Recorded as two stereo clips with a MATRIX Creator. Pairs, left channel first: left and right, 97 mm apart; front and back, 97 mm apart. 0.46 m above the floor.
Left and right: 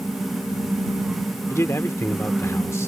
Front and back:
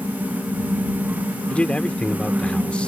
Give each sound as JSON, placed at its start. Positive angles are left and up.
{"t": 1.5, "sound": "a man speaking", "azimuth_deg": 65}